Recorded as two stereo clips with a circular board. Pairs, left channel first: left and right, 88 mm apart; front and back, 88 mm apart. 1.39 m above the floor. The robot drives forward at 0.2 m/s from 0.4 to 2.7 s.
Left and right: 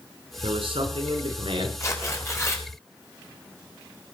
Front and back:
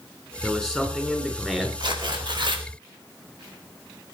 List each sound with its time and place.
0.4 s a man speaking: 95° right, 5 m
1.8 s tearing paper: 150° left, 4 m